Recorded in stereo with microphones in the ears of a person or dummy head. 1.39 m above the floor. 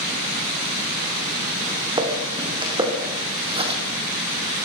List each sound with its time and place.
1.6 s footsteps: 15° right (ahead or behind), 6 m; by 3.8 s 25° right (ahead or behind), 3.5 m